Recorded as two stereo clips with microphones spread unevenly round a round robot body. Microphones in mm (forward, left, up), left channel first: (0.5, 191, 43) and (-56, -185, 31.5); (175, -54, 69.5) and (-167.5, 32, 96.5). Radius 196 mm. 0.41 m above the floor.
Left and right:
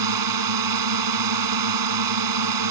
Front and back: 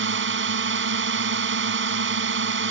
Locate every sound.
0.0 s a drone: 135° right